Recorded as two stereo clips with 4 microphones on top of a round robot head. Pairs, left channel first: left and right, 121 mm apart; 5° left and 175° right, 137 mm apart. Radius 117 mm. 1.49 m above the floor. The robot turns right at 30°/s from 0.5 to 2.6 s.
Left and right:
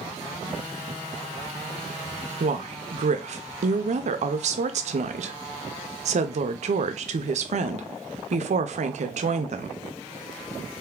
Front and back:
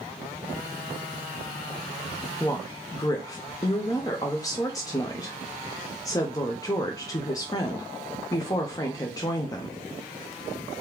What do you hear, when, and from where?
2.4 s a woman speaking: 75° right, 0.5 m; by 9.8 s 65° right, 0.5 m